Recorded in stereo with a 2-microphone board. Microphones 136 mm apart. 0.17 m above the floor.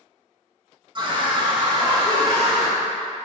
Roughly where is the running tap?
I don't hear a running tap.